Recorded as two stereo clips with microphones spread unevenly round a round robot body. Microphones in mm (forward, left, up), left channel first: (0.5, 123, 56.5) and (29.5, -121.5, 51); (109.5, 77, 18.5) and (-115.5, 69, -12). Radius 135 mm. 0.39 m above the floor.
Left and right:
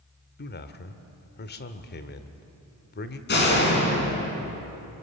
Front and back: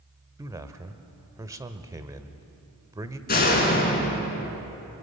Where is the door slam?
50° left, 4 m.